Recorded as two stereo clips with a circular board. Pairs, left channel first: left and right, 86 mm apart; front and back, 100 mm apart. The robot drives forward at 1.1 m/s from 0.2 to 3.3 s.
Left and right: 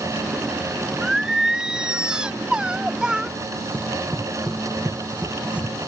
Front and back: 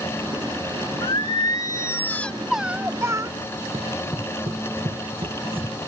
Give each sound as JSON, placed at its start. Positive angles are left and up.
{"t": 1.0, "sound": "singing", "azimuth_deg": -10}
{"t": 3.7, "sound": "running footsteps", "azimuth_deg": -160}